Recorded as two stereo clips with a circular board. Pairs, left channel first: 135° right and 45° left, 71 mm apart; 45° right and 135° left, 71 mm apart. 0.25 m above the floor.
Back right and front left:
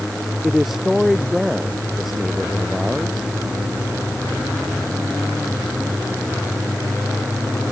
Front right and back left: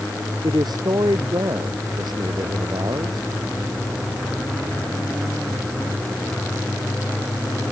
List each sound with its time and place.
0.4 s a man speaking: 130° left